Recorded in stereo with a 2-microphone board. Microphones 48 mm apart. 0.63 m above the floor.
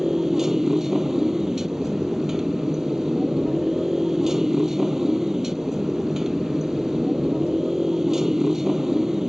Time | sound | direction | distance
0.0 | a motorcycle | 10° right (ahead or behind) | ?